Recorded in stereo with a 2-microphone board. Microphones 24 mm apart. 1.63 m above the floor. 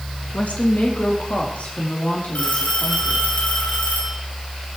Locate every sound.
0.3 s a woman speaking: 80° left, 2 m; by 3.3 s 75° left (ahead or behind), 4.5 m
2.4 s a phone ringing: 80° left, 7 m